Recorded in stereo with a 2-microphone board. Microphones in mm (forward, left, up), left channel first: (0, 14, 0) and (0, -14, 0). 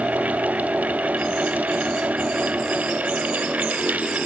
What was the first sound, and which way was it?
Only background noise.